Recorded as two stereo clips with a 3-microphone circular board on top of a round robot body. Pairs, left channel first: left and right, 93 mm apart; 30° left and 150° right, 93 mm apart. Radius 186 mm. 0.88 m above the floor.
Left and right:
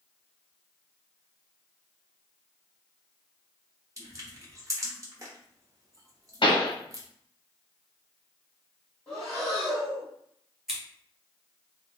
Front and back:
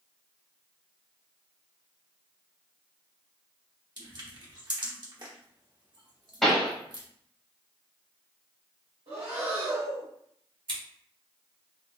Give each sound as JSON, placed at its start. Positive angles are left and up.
{"t": 4.0, "sound": "crushing", "azimuth_deg": -135, "distance_m": 1.3}
{"t": 6.4, "sound": "a pop", "azimuth_deg": 115, "distance_m": 1.0}
{"t": 9.1, "sound": "breathing", "azimuth_deg": 170, "distance_m": 1.1}
{"t": 10.7, "sound": "scissors", "azimuth_deg": -175, "distance_m": 1.2}